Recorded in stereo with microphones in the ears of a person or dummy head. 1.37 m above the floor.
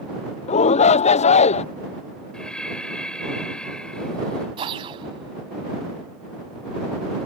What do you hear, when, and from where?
0.5 s a shout: 35° left (ahead or behind)
2.3 s breathing: 5° left (ahead or behind)
4.6 s a whoosh: 30° right (ahead or behind)